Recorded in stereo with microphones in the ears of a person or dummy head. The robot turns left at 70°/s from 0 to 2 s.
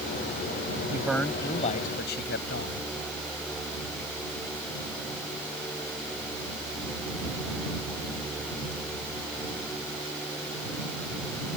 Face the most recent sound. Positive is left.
turn(degrees=120)